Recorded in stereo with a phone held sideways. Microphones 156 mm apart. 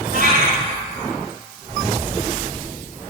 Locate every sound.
0.1 s a cat meowing: 55° right (ahead or behind), 3 m